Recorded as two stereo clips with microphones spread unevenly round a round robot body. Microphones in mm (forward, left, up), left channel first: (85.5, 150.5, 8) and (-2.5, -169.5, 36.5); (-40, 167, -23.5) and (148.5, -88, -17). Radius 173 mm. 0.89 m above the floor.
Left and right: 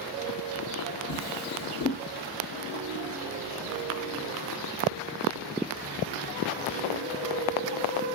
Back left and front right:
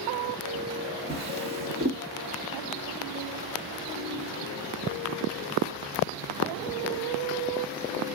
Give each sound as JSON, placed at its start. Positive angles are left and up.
{"t": 1.1, "sound": "a drawer", "azimuth_deg": 15, "distance_m": 2.0}